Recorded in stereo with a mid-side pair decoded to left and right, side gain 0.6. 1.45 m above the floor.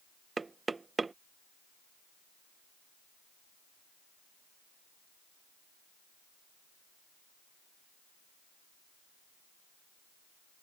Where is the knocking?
20° right.